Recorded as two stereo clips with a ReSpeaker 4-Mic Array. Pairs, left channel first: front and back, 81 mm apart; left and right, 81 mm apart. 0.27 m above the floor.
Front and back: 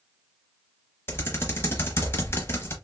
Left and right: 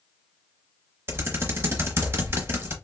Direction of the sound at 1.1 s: 45° right.